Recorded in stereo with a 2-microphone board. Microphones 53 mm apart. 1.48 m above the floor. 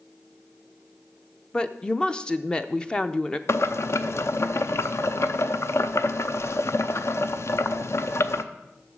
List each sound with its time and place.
1.5 s a woman speaking: 15° left (ahead or behind), 0.5 m
3.5 s boiling: 55° left (ahead or behind), 0.5 m